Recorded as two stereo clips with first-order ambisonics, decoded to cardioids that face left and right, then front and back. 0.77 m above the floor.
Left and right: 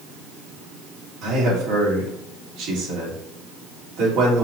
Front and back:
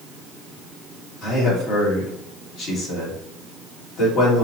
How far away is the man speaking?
About 1.7 m.